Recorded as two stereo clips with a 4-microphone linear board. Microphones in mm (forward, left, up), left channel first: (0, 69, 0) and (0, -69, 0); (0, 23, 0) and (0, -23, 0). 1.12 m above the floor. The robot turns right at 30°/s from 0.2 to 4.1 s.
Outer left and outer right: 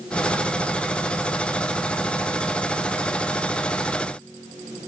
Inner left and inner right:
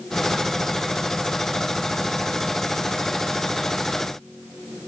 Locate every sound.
Only background noise.